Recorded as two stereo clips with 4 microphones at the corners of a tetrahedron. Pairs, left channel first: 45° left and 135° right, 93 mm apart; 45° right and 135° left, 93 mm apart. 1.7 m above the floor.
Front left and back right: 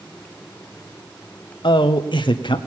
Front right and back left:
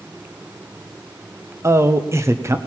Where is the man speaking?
75° left, 0.9 m.